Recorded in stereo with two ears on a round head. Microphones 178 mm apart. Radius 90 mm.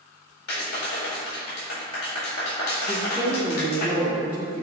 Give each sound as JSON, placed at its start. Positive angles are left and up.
{"t": 0.5, "sound": "a clap", "side_deg": 85, "distance_m": 3.5}
{"t": 2.9, "sound": "a woman speaking", "side_deg": -10, "distance_m": 2.0}